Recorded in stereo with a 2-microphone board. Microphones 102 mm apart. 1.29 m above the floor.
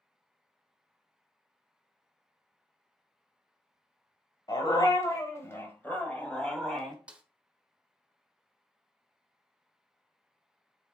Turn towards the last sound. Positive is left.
turn(degrees=-10)  # may be behind; listen again after turning